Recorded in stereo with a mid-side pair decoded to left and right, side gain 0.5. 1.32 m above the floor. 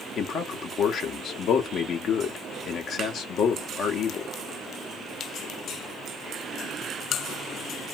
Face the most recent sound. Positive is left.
turn(degrees=55)